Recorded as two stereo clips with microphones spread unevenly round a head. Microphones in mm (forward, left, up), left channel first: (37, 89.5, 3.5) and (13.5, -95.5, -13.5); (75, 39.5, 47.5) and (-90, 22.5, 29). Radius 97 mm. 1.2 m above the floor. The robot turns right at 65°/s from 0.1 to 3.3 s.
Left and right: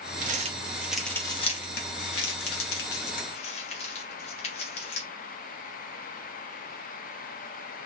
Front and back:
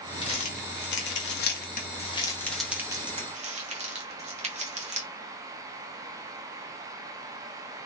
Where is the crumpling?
60° right, 1.2 m; by 5.1 s 140° left, 1.2 m.